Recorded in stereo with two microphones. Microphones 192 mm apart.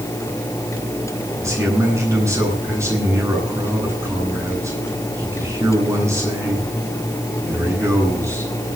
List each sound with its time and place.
1.4 s a man speaking: 15° right (ahead or behind), 9 m